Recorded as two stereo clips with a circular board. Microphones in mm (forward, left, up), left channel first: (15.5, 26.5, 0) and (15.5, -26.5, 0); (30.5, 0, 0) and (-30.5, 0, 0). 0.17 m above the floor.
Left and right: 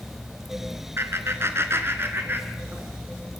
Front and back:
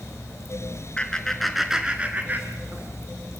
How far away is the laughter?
About 3 m.